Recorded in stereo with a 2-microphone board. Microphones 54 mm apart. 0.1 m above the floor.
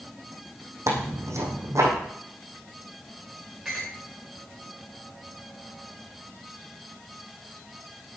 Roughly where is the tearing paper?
Right.